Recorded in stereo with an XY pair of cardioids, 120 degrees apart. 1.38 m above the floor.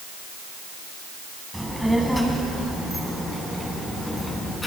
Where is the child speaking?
Straight ahead, 7 m; by 4.7 s 15° left, 9 m.